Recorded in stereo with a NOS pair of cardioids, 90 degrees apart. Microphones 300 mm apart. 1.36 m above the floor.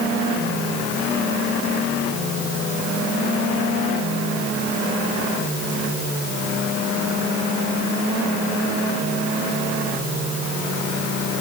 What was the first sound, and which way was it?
Only background noise.